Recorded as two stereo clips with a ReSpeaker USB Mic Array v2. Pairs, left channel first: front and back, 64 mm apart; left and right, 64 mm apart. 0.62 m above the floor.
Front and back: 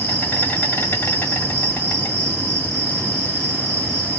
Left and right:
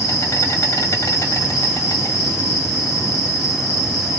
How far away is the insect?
About 1.9 m.